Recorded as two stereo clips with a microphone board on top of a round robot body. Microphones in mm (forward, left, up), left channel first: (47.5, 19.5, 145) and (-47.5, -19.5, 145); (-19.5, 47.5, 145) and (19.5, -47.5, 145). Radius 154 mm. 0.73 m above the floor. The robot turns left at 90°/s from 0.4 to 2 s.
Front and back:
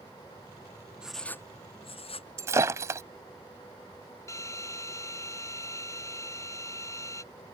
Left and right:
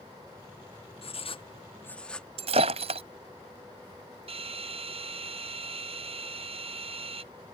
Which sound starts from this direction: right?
Breaking glass, at 2.4 s.